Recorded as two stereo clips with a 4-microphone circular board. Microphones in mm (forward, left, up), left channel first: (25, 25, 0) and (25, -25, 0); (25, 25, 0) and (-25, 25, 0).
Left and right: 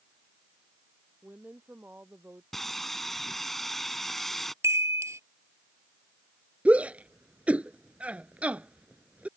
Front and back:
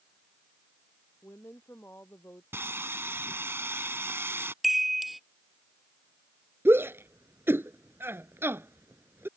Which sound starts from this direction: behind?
Sawing, at 2.5 s.